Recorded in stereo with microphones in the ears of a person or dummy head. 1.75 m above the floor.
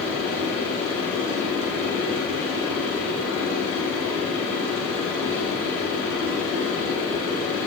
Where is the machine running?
70° right (ahead or behind), 2 m.